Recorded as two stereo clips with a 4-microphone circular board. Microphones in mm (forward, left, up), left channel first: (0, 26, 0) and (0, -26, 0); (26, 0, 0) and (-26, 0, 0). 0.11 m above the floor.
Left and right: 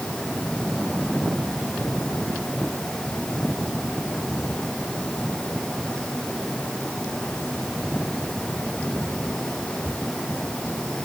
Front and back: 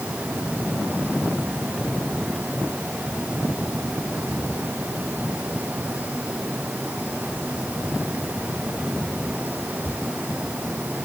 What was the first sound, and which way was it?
Only background noise.